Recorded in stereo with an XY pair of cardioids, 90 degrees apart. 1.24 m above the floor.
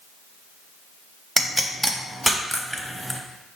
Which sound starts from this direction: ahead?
A pop, at 1.4 s.